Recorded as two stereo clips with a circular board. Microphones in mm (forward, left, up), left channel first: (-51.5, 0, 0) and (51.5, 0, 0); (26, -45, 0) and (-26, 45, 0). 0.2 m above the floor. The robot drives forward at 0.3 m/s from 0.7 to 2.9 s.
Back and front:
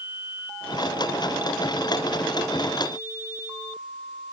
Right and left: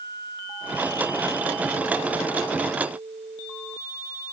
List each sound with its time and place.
Only background noise.